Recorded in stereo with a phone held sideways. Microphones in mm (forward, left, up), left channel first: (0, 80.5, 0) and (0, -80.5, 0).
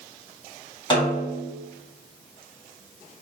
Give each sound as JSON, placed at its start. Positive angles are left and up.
{"t": 0.9, "sound": "a snare drum", "side_deg": 30, "distance_m": 1.6}